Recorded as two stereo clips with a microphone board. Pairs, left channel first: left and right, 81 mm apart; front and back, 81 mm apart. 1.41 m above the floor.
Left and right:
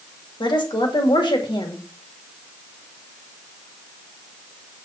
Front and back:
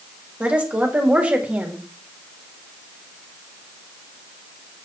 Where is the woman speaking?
105° left, 2 m.